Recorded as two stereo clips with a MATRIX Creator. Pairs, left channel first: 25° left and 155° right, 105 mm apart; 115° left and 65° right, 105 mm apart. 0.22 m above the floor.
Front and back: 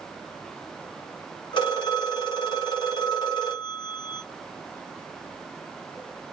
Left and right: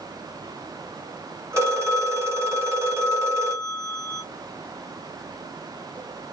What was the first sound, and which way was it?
A phone ringing, 10° right.